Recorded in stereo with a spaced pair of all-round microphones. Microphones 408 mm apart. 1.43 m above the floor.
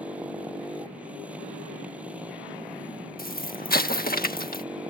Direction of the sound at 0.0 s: 5° right (ahead or behind).